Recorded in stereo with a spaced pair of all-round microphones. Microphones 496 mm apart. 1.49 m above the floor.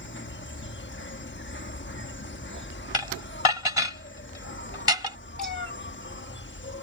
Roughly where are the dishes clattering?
Left.